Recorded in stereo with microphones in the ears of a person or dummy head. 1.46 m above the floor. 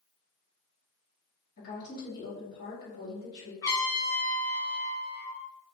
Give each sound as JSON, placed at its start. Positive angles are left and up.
{"t": 1.6, "sound": "a woman speaking", "side_deg": 55, "distance_m": 1.9}
{"t": 3.6, "sound": "a trumpet", "side_deg": 20, "distance_m": 0.7}